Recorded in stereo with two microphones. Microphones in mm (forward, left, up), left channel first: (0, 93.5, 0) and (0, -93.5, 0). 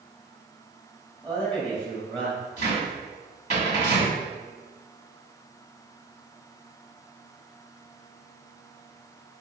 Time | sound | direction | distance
1.2 | a man speaking | 5° left (ahead or behind) | 1.3 m
2.6 | a cupboard door | 40° left (ahead or behind) | 2.0 m